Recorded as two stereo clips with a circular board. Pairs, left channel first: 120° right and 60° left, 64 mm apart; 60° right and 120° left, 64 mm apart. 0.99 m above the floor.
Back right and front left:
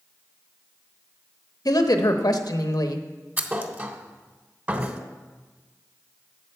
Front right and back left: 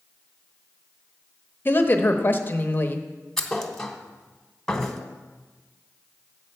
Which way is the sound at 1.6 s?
115° right.